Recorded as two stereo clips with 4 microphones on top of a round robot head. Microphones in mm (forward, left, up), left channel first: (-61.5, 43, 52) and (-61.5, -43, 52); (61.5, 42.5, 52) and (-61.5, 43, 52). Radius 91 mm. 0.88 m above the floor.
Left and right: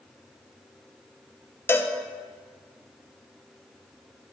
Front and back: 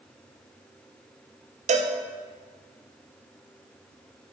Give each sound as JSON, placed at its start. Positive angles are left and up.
{"t": 1.7, "sound": "a cowbell", "azimuth_deg": 155, "distance_m": 0.7}